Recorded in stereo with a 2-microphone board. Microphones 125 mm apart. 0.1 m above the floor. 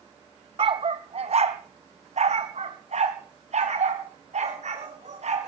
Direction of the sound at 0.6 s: 50° right (ahead or behind).